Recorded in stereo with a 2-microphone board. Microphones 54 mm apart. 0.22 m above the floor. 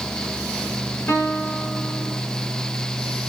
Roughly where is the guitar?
Left.